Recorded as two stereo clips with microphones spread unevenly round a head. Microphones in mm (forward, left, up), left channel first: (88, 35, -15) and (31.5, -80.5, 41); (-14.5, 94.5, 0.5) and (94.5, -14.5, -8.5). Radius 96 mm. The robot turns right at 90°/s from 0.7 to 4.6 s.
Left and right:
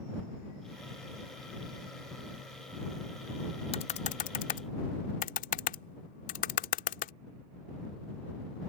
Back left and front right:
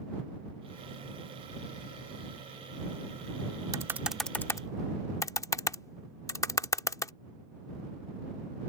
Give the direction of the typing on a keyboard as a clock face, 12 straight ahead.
12 o'clock.